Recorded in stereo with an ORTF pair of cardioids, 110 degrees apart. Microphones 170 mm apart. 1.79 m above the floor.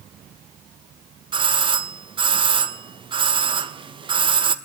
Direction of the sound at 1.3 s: 30° right.